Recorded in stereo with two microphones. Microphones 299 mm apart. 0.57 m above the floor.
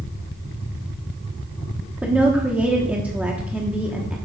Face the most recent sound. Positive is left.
turn(degrees=-5)  # may be behind; listen again after turning